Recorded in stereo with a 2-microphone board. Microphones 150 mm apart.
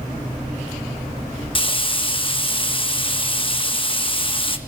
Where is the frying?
35° left (ahead or behind), 1.2 m.